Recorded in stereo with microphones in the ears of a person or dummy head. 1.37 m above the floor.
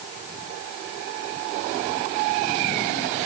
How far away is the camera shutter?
No camera shutter in this recording.